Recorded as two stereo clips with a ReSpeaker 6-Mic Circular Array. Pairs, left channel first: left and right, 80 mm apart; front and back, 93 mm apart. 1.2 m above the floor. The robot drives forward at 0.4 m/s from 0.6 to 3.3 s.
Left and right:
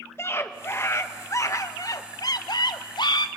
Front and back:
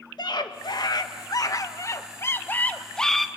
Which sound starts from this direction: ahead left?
A scream, at 0.2 s.